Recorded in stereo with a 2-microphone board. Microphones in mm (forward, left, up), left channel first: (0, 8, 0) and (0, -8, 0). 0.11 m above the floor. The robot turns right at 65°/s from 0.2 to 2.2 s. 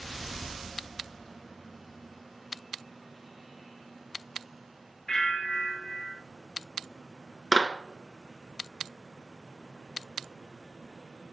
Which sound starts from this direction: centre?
A clap, at 7.5 s.